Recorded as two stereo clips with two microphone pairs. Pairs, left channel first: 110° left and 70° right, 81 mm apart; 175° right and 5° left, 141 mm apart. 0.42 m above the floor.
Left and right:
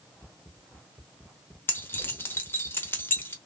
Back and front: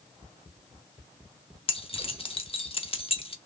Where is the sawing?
No sawing in this recording.